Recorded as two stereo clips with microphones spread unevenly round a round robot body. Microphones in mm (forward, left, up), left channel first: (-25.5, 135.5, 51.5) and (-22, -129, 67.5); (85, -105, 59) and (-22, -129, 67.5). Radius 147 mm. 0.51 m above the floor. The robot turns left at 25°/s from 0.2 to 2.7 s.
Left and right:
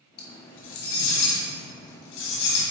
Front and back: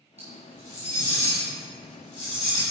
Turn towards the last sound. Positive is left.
turn(degrees=80)